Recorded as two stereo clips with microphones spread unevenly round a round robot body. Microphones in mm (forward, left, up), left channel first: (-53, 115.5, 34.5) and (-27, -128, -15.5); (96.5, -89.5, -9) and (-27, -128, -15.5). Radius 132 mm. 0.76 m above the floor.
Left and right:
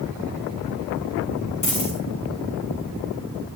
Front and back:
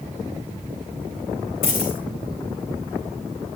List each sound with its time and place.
1.6 s a dropped coin: 30° left, 5 m